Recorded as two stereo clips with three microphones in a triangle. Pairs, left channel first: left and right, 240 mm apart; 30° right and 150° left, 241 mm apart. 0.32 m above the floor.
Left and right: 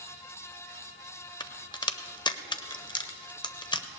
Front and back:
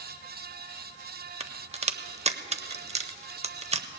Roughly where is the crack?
Behind left.